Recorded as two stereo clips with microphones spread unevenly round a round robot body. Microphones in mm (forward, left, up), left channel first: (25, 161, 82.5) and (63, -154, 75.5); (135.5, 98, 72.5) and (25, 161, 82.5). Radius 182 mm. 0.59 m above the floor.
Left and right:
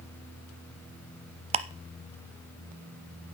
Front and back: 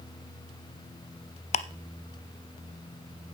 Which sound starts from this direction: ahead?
Ticking, at 1.5 s.